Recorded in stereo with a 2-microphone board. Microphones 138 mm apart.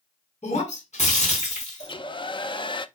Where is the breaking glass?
55° left (ahead or behind), 3.5 m.